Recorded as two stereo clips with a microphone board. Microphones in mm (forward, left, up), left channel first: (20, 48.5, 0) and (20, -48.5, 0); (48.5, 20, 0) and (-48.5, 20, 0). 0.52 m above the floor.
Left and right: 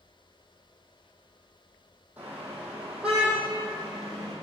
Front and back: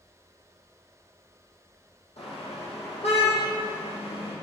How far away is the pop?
No pop in this recording.